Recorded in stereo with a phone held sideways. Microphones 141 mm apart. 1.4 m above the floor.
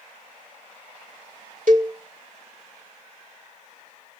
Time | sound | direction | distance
1.7 | a cowbell | 70° right (ahead or behind) | 1.4 m